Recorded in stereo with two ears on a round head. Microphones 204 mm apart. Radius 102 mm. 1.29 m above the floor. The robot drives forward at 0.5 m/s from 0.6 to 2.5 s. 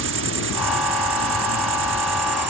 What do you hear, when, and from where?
0.0 s an insect: 55° right (ahead or behind); by 2.5 s 50° right (ahead or behind)